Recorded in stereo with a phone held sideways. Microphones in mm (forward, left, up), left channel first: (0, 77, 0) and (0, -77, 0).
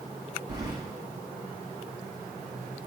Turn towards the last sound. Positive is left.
turn(degrees=-25)  # may be behind; listen again after turning